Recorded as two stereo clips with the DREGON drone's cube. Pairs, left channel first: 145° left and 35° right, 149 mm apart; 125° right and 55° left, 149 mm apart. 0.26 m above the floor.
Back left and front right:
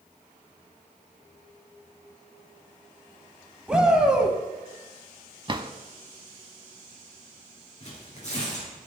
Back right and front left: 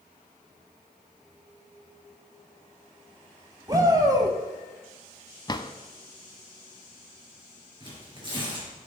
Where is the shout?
45° left, 1.1 m.